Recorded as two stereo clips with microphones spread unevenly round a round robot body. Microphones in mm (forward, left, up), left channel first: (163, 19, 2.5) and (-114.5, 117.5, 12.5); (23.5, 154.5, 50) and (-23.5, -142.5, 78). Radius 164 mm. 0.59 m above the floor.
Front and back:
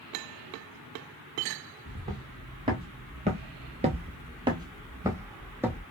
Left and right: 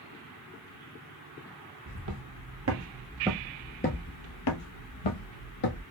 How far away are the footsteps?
About 1.3 m.